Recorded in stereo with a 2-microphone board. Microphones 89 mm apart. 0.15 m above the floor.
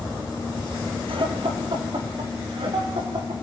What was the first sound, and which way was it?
Laughter, 70° right (ahead or behind).